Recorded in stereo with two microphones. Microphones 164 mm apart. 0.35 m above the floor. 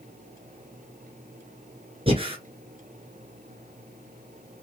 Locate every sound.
2.1 s breathing: 35° right (ahead or behind), 1.4 m